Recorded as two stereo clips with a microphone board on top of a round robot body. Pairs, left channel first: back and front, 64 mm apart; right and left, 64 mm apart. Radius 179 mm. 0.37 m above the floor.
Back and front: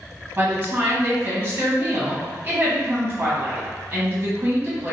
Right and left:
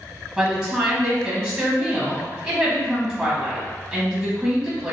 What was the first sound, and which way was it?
A woman speaking, 15° left.